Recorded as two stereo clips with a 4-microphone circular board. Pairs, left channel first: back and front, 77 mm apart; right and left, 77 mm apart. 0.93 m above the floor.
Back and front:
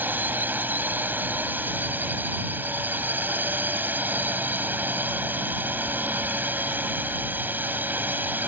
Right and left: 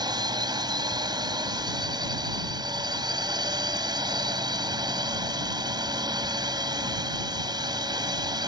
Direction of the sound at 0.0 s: 65° left.